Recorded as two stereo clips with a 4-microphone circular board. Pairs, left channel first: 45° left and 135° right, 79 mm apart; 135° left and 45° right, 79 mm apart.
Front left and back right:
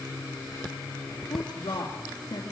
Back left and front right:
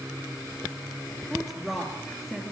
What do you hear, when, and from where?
1.3 s a woman speaking: 45° left, 3 m